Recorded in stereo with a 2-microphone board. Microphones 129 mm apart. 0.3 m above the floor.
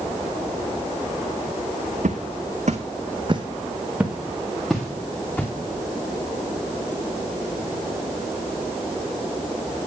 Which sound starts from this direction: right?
Footsteps, at 2.0 s.